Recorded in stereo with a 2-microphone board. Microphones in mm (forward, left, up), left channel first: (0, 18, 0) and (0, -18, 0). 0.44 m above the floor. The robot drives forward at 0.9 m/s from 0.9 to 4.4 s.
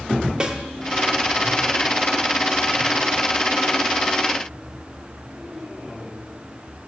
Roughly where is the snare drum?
Right.